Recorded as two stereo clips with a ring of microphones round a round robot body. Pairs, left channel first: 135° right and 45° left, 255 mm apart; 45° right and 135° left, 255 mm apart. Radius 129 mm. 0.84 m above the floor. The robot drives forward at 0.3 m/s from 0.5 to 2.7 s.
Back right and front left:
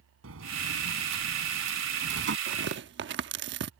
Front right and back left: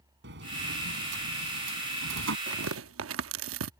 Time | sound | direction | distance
0.2 | a sliding door | 85° left | ?
2.5 | tearing paper | 90° left | ?